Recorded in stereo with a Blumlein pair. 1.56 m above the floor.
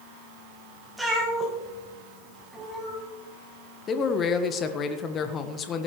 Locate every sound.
1.0 s a cat meowing: 10° right, 4 m
3.9 s a man speaking: 25° left, 1.4 m